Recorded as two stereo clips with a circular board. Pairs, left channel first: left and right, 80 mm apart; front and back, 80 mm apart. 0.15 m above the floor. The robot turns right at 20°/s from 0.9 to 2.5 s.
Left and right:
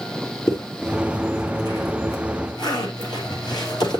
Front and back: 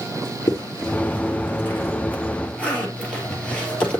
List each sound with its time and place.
0.5 s a zipper: 45° left, 3 m; by 4.0 s 75° left, 3 m